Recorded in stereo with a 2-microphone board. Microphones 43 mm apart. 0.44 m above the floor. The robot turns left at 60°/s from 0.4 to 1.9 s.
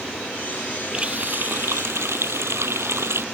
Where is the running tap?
20° right; by 3.2 s 75° right.